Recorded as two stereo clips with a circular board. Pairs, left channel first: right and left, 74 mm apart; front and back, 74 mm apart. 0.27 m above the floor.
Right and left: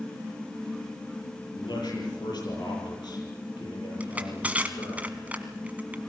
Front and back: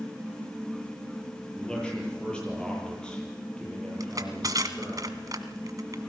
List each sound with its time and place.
1.6 s a man speaking: 80° right, 8.5 m
4.0 s crushing: 155° left, 1.4 m